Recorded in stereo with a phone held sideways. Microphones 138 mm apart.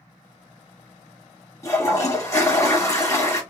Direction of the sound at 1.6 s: 20° left (ahead or behind).